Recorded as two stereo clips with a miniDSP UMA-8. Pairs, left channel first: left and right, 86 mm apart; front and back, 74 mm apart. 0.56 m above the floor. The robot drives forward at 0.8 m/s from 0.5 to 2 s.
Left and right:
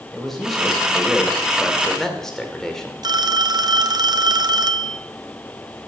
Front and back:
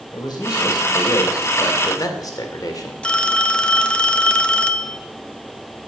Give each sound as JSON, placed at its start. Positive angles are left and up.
{"t": 0.1, "sound": "a man speaking", "azimuth_deg": 5, "distance_m": 3.0}
{"t": 3.0, "sound": "a phone ringing", "azimuth_deg": -70, "distance_m": 0.7}